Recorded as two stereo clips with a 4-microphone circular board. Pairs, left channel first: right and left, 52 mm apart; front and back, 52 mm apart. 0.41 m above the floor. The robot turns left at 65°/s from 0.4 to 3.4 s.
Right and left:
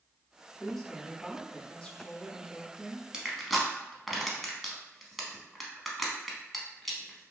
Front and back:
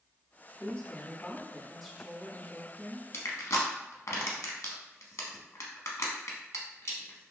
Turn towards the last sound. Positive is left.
turn(degrees=0)